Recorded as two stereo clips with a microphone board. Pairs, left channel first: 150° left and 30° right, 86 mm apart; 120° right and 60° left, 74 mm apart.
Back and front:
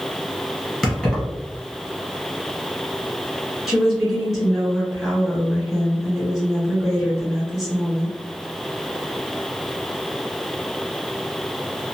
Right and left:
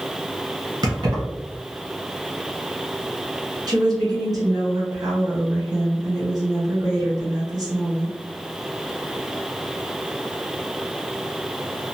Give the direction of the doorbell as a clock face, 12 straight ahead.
I don't hear a doorbell.